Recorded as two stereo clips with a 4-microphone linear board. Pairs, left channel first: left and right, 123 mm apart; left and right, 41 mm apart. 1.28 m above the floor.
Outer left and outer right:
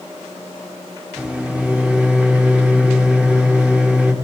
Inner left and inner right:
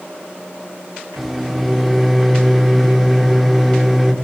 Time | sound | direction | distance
1.2 | a microwave | 10° right (ahead or behind) | 1.1 m